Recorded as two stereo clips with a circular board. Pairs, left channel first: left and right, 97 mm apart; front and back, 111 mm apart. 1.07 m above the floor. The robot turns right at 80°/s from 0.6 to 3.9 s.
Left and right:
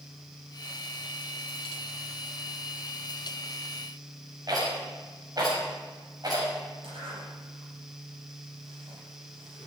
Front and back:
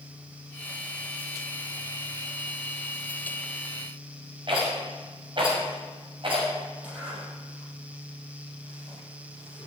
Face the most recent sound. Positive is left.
turn(degrees=-100)